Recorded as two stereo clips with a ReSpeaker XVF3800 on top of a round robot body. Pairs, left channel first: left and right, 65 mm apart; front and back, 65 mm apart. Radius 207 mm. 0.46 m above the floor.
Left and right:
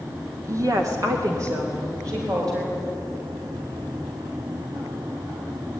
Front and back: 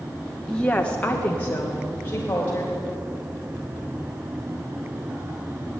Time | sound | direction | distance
0.5 | a woman speaking | 75° right | 1.7 m